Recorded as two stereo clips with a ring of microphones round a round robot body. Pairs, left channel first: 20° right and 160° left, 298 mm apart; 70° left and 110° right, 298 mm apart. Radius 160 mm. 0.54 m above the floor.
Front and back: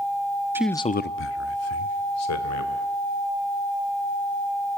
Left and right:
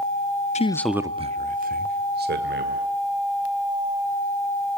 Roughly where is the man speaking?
Left.